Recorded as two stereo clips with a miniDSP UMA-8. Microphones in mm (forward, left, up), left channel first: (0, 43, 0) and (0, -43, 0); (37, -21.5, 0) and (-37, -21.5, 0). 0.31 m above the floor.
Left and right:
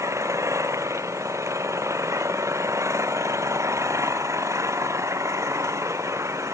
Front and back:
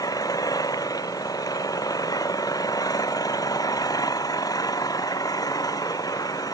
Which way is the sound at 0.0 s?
35° right.